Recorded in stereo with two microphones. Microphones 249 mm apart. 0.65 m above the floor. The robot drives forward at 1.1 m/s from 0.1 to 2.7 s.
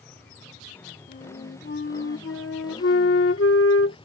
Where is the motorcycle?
5° left (ahead or behind); by 4.0 s 20° left (ahead or behind).